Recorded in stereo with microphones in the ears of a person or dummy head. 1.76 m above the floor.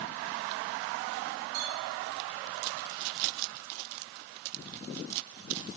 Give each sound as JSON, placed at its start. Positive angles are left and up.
{"t": 1.5, "sound": "a clink", "side_deg": -50, "distance_m": 4.5}